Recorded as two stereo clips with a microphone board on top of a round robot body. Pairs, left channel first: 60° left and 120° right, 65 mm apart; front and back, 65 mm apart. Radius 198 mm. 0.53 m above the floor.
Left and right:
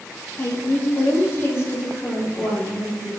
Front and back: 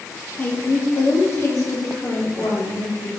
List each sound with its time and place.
0.4 s a woman speaking: 40° left, 1.2 m; by 3.1 s 20° left, 2.5 m